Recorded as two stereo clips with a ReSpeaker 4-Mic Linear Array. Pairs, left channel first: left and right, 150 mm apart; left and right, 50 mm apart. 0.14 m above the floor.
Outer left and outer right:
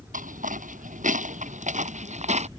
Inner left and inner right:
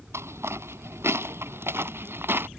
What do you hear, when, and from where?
0.1 s footsteps: 65° right (ahead or behind); by 2.5 s 50° right (ahead or behind)